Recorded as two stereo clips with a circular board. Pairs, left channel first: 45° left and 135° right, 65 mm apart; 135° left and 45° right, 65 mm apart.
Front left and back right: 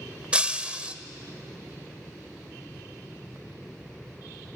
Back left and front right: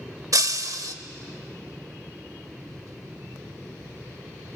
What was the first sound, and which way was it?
Breaking glass, 65° right.